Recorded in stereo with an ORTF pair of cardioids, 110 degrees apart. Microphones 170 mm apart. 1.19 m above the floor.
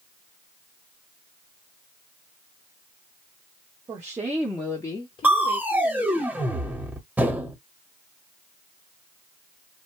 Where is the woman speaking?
25° right, 0.9 m; by 6.2 s 65° left, 1.2 m.